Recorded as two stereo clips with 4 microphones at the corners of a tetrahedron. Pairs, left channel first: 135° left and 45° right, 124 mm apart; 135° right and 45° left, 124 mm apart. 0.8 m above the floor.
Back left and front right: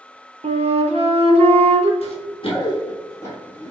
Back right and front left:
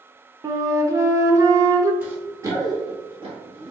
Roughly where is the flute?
Ahead.